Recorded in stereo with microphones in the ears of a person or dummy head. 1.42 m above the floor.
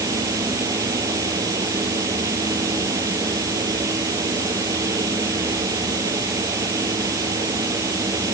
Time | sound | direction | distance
0.0 | a fan | 15° right (ahead or behind) | ?